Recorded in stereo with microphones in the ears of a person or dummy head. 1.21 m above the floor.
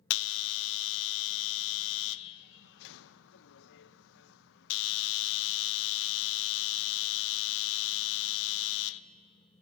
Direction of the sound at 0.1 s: 80° left.